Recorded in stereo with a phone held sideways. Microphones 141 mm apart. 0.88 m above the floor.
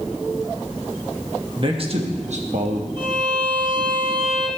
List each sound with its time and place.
1.6 s a man speaking: 40° right (ahead or behind), 1.1 m; by 2.9 s 65° right (ahead or behind), 1.2 m
3.0 s a violin: 40° right (ahead or behind), 1.3 m